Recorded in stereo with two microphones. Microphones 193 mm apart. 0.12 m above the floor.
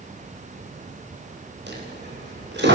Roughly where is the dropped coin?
Right.